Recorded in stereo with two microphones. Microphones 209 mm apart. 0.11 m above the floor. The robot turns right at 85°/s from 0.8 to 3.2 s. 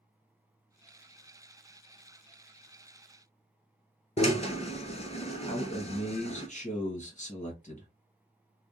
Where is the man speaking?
40° left (ahead or behind), 1.6 m.